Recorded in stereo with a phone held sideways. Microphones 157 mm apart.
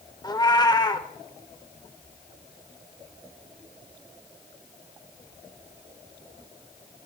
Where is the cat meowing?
25° left (ahead or behind), 0.8 m.